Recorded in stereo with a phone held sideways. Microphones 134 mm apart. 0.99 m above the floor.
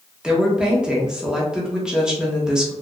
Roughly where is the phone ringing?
No phone ringing in this recording.